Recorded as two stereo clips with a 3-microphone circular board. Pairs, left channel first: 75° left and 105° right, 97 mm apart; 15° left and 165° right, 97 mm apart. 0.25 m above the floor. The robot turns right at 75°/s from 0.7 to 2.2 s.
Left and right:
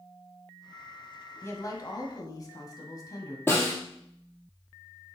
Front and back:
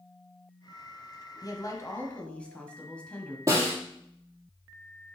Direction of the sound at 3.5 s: 140° left.